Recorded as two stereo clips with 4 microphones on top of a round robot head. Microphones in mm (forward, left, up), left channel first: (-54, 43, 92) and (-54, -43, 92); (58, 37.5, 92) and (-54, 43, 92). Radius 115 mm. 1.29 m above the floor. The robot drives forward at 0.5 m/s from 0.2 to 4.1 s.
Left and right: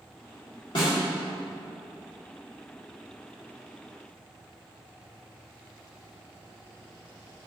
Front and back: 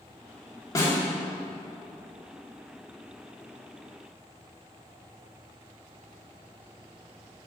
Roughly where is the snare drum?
Ahead left.